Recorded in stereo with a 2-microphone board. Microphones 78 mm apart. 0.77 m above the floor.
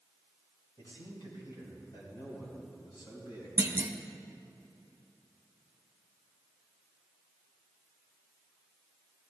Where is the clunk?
30° right (ahead or behind), 0.8 m.